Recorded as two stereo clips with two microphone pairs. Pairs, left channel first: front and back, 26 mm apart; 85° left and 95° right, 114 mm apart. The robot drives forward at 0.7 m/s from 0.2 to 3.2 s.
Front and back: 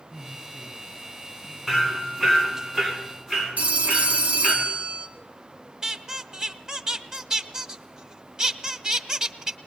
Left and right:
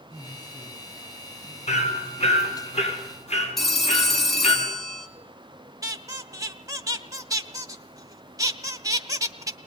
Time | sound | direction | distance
0.1 | a woman speaking | 70° left | 9 m
1.7 | hammering | 95° left | 4 m
3.6 | a phone ringing | 170° left | 2.5 m
5.8 | a squeak | 135° right | 1.0 m